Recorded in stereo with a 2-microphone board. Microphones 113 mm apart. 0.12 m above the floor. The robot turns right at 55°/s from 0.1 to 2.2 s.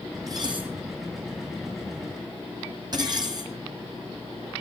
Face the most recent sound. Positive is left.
turn(degrees=-40)  # may be behind; listen again after turning